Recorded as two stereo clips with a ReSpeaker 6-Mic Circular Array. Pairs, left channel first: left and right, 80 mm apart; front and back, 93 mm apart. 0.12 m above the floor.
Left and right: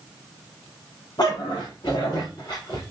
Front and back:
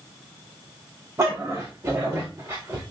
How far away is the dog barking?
About 4 m.